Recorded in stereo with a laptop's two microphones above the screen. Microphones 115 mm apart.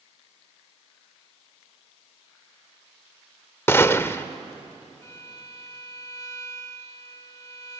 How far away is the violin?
About 1.4 m.